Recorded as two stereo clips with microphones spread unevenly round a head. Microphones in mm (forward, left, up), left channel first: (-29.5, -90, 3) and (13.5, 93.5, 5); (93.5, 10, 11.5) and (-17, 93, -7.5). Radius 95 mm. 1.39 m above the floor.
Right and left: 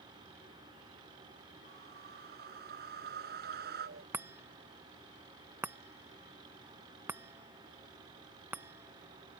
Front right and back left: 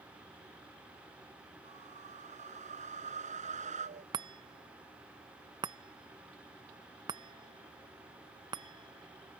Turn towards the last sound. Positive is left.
turn(degrees=140)